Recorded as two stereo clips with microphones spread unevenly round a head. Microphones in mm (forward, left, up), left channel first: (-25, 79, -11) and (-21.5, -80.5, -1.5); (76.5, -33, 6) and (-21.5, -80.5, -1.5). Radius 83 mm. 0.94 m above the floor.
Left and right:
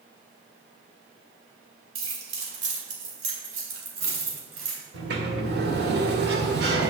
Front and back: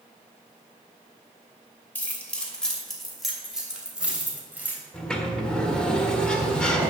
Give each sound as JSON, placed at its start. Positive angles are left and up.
{"t": 1.9, "sound": "keys jangling", "azimuth_deg": -50, "distance_m": 2.5}
{"t": 4.9, "sound": "a sliding door", "azimuth_deg": -55, "distance_m": 1.6}